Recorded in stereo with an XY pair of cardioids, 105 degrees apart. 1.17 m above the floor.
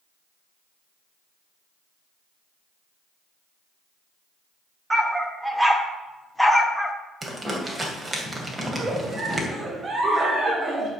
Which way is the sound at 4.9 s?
15° right.